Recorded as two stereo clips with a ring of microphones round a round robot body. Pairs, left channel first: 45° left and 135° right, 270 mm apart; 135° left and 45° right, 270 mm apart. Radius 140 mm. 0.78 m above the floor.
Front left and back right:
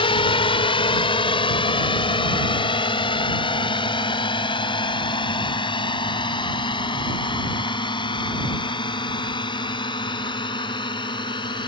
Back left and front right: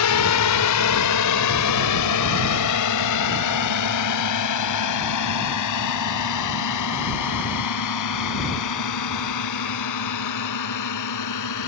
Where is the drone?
115° left; by 11.7 s 120° left.